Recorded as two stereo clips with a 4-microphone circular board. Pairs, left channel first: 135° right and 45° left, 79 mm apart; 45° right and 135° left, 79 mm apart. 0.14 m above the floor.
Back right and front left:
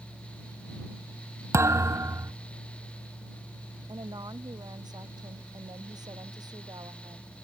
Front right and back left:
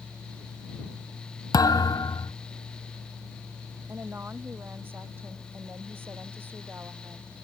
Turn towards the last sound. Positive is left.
turn(degrees=75)